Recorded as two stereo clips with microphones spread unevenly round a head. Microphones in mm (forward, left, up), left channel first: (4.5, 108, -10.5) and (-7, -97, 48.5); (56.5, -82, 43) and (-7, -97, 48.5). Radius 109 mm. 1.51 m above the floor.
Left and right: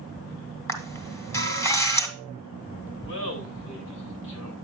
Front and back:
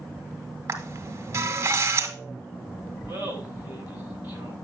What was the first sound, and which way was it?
A camera shutter, straight behind.